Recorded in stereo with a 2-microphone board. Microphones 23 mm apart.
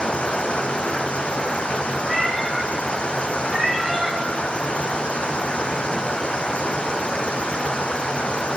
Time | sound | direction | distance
0.0 | running water | 60° left (ahead or behind) | 1.0 m
2.0 | a cat meowing | 15° right (ahead or behind) | 4 m